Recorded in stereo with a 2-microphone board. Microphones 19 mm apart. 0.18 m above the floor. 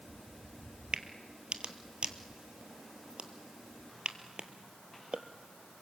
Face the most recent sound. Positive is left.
turn(degrees=-65)  # may be behind; listen again after turning